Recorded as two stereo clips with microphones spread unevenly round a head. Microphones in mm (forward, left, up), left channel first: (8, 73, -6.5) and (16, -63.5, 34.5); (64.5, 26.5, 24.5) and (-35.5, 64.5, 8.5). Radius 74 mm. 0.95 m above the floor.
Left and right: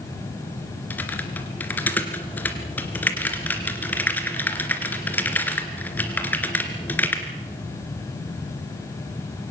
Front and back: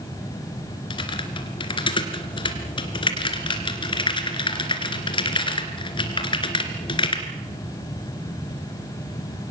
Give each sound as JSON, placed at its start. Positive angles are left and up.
{"t": 0.9, "sound": "typing on a keyboard", "azimuth_deg": 10, "distance_m": 2.5}